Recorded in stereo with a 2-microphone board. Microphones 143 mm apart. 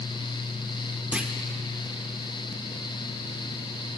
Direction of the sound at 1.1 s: 10° right (ahead or behind).